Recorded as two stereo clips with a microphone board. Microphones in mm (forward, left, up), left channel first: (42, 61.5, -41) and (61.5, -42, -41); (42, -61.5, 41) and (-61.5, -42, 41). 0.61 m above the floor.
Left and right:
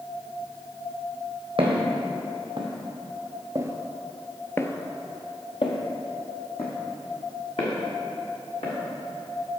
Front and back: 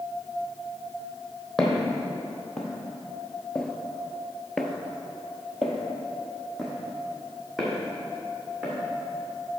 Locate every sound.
1.6 s footsteps: 95° right, 1.5 m; by 8.7 s 80° left, 2.5 m